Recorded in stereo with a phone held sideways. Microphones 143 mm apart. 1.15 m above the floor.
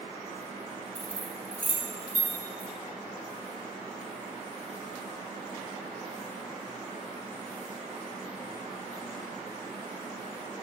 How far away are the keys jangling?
About 1.8 m.